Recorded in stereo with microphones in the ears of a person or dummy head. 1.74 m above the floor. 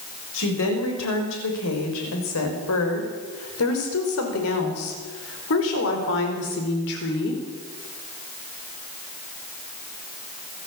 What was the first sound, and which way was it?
A woman speaking, 80° left.